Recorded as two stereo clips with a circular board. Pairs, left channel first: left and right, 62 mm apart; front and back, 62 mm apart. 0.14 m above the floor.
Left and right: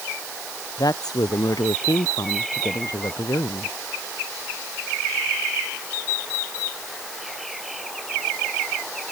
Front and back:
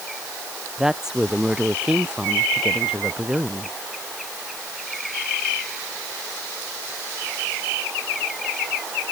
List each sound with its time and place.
0.8 s a woman speaking: 100° left; by 3.8 s 105° left